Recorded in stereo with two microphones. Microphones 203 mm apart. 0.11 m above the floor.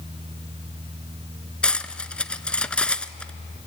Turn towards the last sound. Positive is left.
turn(degrees=5)  # may be behind; listen again after turning